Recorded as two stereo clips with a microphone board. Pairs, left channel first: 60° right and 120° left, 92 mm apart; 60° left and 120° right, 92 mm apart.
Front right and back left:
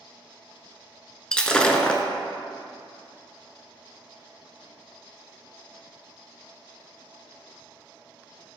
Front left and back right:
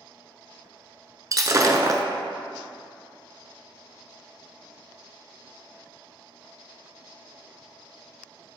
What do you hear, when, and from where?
1.3 s breaking glass: 135° right, 0.6 m